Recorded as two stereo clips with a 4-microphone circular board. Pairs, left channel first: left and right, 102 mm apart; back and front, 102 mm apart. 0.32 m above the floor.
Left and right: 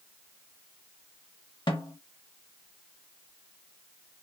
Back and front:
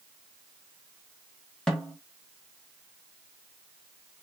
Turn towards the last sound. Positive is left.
turn(degrees=100)